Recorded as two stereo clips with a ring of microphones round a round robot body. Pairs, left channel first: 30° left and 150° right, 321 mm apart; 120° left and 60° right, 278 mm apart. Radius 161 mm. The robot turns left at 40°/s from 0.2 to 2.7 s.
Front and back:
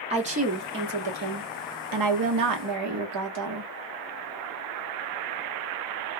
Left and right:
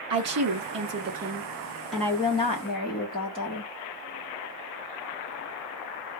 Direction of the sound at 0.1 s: 80° right.